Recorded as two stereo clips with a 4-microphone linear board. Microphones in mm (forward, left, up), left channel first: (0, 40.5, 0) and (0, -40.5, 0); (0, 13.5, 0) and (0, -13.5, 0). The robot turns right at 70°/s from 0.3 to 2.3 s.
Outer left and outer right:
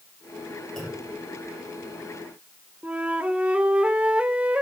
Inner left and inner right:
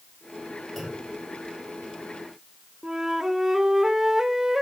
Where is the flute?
15° right (ahead or behind), 1.6 m.